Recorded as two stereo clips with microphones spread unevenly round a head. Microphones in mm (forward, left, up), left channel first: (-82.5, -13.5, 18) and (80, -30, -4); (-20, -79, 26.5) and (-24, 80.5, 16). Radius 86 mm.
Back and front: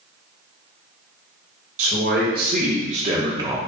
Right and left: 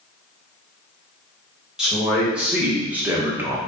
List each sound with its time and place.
1.8 s a man speaking: 5° left, 1.4 m; by 3.6 s 40° left, 0.6 m